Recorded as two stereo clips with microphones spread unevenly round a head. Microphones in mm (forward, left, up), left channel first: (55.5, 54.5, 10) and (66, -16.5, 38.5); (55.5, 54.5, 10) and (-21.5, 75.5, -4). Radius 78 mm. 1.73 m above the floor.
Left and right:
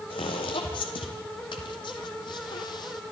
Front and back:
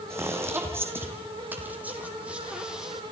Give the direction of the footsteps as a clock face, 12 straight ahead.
8 o'clock.